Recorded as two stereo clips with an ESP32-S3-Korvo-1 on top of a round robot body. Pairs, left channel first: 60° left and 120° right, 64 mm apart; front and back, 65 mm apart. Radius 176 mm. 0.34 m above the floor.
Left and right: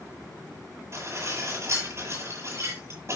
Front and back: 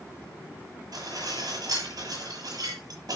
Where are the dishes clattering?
170° right, 8 m.